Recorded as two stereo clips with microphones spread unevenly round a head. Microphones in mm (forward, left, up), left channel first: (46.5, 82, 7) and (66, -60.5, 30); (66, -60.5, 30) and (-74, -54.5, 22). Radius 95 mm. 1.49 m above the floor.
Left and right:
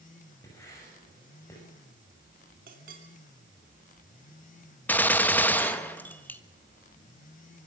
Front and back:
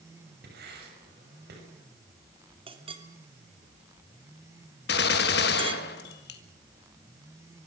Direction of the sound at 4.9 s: 15° left.